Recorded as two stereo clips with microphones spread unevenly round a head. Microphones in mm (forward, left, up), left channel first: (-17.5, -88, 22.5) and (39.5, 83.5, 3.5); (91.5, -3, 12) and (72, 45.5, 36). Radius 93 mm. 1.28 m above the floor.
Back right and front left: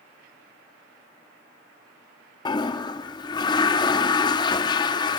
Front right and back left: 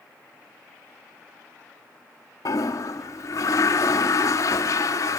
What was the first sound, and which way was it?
A toilet flushing, 100° right.